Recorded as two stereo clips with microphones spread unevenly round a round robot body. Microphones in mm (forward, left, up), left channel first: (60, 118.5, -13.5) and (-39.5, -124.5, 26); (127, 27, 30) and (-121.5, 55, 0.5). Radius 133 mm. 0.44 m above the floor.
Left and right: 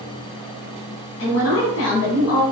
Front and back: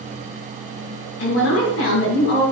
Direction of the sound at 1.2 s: 35° left.